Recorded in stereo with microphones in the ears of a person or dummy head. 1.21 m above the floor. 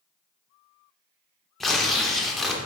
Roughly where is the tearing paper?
Centre.